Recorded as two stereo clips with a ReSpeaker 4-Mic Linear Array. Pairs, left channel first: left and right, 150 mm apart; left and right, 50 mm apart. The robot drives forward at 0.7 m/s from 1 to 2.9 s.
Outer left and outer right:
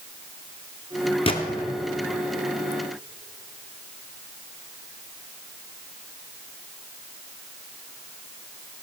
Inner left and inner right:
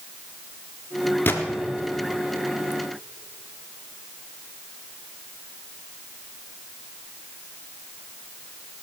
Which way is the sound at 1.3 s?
40° left (ahead or behind).